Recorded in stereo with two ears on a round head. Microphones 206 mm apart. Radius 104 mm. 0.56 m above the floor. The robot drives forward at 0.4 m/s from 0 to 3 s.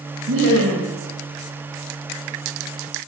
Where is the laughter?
70° right (ahead or behind), 2.5 m; by 0.9 s 65° right (ahead or behind), 2.5 m.